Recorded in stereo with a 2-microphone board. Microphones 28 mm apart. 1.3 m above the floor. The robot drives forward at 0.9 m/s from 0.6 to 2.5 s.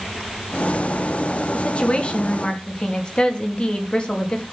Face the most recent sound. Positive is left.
turn(degrees=40)  # may be behind; listen again after turning